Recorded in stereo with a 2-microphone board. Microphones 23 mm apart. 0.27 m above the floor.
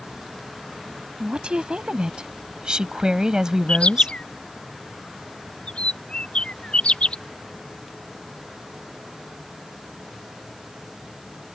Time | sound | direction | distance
1.2 | a woman speaking | 50° right (ahead or behind) | ?
3.7 | a bird | 50° left (ahead or behind) | ?